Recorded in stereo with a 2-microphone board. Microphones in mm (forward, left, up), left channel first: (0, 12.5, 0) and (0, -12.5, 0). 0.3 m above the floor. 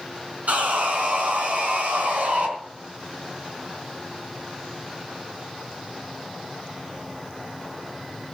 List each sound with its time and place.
0.5 s sawing: 70° right (ahead or behind), 3.5 m